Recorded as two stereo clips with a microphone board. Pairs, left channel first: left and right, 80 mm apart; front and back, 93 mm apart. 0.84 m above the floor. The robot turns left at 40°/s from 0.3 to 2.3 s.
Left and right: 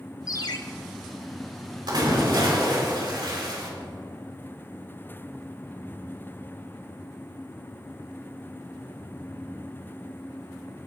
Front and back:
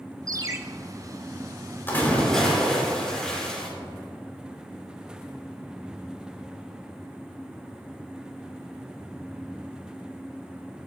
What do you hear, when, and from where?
0.3 s a ringtone: 130° left, 0.7 m; by 0.6 s 120° left, 0.7 m
1.9 s a splash: 65° right, 3 m; by 3.7 s 80° right, 3 m